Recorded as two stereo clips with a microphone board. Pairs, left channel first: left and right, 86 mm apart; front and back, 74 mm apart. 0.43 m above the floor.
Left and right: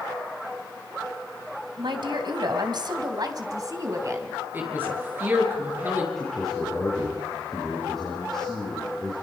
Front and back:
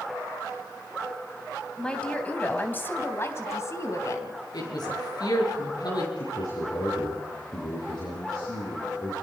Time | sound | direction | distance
1.8 | a woman speaking | 80° right | 2.5 m
4.5 | a woman speaking | 25° right | 7.5 m
6.2 | a man speaking | 5° left | 8.5 m